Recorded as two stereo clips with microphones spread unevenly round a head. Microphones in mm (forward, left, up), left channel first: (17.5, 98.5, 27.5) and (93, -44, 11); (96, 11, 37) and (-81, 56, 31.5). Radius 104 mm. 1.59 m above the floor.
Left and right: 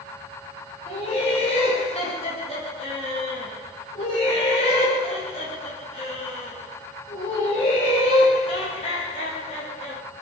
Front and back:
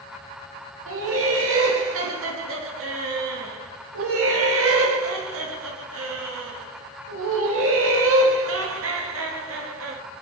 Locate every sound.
0.9 s laughter: straight behind, 0.7 m